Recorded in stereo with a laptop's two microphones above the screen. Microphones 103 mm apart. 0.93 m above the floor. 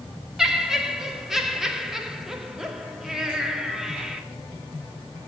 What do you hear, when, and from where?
0.4 s laughter: 5° right (ahead or behind), 2.5 m